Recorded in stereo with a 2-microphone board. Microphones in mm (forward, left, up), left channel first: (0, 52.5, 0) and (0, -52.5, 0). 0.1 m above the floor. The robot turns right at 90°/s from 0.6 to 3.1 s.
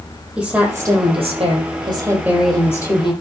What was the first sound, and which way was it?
A woman speaking, 170° right.